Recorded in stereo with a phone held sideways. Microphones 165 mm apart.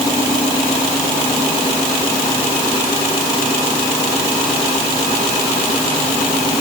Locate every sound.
Only background noise.